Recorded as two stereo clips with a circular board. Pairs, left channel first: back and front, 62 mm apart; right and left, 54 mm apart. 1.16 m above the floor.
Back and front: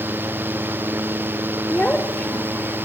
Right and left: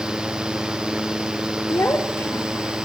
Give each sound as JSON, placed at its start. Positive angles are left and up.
{"t": 1.7, "sound": "a child speaking", "azimuth_deg": -115, "distance_m": 2.5}